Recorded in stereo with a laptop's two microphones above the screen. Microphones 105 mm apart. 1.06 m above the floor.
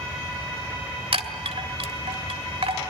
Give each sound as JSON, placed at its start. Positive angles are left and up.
{"t": 1.1, "sound": "a chime", "side_deg": -65, "distance_m": 1.8}